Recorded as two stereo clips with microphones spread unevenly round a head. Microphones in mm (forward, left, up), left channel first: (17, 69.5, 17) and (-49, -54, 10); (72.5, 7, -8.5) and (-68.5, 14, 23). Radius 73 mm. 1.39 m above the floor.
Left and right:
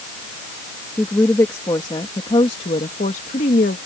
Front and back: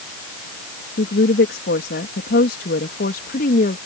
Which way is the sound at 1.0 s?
15° right.